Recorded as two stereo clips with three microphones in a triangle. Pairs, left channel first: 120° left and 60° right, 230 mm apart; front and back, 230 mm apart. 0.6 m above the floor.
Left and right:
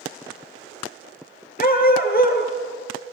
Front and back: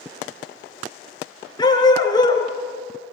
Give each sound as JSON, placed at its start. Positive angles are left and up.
{"t": 1.6, "sound": "a dog barking", "azimuth_deg": 70, "distance_m": 3.0}